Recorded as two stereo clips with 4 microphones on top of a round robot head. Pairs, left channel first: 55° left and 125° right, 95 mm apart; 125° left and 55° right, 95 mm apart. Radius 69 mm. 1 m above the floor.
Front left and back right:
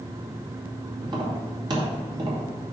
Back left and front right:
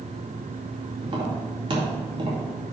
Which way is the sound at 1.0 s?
85° right.